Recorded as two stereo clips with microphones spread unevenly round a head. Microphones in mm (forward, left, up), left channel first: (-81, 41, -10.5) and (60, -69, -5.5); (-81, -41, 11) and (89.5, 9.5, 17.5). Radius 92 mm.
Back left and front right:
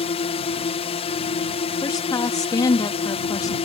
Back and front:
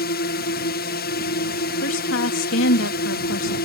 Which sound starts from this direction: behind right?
A woman speaking, at 1.8 s.